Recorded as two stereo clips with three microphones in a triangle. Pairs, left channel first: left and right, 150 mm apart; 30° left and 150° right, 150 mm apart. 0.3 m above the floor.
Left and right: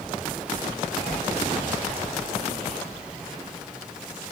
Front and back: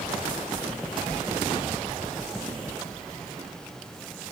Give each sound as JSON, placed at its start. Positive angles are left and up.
{"t": 1.1, "sound": "a whoosh", "azimuth_deg": 165, "distance_m": 0.7}